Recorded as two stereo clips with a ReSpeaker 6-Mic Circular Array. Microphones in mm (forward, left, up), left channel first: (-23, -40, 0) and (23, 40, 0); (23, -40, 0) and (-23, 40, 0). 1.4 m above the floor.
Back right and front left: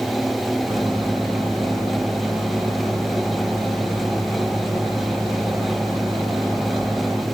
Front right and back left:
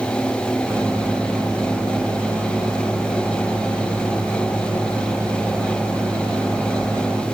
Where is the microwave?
65° left, 4 m.